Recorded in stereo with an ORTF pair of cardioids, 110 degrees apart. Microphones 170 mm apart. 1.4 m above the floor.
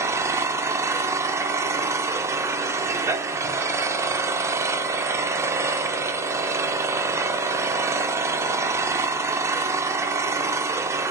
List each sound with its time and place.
0.0 s an engine running: 15° right, 0.9 m